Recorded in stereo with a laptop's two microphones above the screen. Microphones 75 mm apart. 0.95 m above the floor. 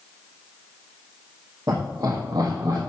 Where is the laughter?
45° right (ahead or behind), 1.8 m; by 2.8 s 55° right (ahead or behind), 1.3 m.